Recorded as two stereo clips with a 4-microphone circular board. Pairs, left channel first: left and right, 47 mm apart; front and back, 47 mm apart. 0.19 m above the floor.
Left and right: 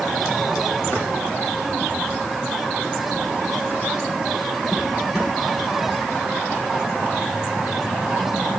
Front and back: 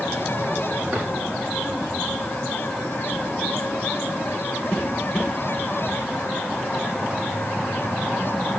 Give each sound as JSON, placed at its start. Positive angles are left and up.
{"t": 0.9, "sound": "a drawer", "azimuth_deg": 135, "distance_m": 5.5}